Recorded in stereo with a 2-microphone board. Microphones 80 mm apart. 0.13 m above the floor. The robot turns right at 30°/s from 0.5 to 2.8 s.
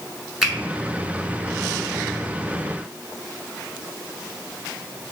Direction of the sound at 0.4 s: Centre (ahead or behind).